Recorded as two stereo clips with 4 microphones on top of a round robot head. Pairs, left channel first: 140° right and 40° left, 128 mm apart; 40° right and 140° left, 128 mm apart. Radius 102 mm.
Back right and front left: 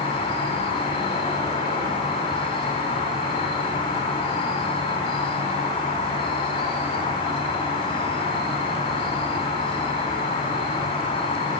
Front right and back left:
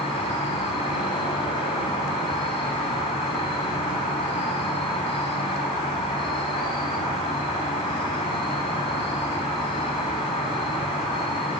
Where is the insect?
90° right, 2 m.